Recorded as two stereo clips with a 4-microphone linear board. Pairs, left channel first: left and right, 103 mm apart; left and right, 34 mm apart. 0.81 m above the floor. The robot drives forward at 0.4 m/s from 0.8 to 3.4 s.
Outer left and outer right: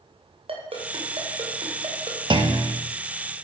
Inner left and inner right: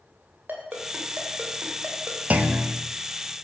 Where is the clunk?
50° right (ahead or behind), 1.0 m; by 2.8 s 55° right (ahead or behind), 0.9 m.